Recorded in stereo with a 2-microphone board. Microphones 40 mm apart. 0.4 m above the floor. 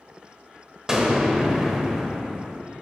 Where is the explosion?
15° right (ahead or behind), 1.0 m.